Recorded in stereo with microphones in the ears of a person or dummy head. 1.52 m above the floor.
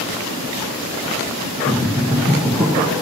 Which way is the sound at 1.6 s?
5° left (ahead or behind).